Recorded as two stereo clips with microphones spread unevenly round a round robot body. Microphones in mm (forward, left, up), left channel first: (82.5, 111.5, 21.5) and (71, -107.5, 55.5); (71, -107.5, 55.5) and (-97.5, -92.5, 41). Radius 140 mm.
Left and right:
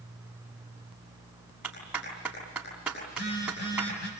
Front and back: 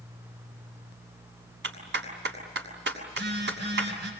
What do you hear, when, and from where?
1.6 s a clap: straight behind, 6.5 m
3.1 s a phone buzzing: 140° left, 7 m